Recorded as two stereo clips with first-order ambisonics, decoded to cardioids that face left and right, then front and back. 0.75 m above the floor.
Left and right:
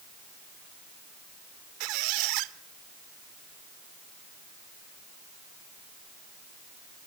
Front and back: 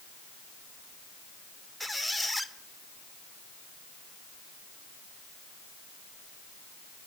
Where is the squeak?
90° right, 0.8 m.